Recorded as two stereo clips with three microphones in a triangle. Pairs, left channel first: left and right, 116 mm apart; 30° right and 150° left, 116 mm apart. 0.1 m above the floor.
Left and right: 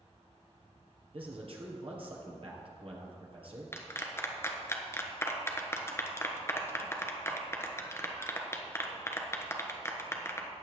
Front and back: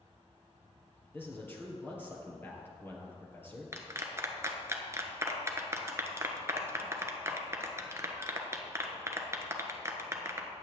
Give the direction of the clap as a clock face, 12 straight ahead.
8 o'clock.